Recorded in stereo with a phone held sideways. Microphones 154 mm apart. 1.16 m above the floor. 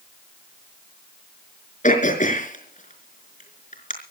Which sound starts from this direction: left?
Throat clearing, at 1.8 s.